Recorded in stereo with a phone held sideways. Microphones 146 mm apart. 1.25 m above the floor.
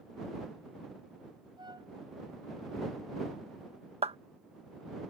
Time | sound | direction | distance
1.6 | a flute | 30° right (ahead or behind) | ?
4.0 | a clap | 45° right (ahead or behind) | ?